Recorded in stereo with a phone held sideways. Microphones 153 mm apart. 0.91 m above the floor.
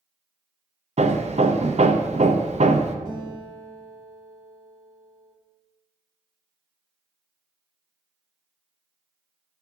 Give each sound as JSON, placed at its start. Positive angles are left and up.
{"t": 1.0, "sound": "hammering", "side_deg": -50, "distance_m": 0.6}
{"t": 3.0, "sound": "a guitar", "side_deg": -80, "distance_m": 3.5}